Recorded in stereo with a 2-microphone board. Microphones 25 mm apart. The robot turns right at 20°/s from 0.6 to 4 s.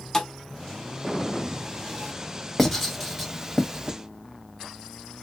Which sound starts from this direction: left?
A thud, at 0.1 s.